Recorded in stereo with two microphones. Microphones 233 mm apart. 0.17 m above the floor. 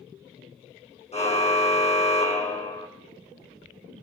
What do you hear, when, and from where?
1.1 s a car horn: 25° left (ahead or behind), 4.5 m